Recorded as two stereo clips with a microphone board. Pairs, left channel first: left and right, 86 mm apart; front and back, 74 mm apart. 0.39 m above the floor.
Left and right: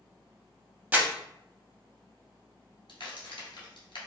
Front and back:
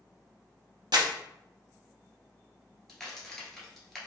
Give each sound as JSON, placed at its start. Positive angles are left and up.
{"t": 0.9, "sound": "crumpling", "azimuth_deg": -155, "distance_m": 0.5}
{"t": 2.9, "sound": "a crack", "azimuth_deg": 85, "distance_m": 1.1}